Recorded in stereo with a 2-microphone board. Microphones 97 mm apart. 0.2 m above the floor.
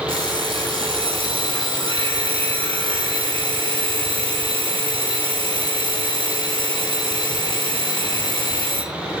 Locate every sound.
0.1 s an alarm clock: 70° right (ahead or behind), 1.7 m